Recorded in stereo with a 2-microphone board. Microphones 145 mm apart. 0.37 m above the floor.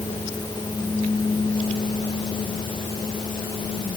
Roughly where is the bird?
I don't hear a bird.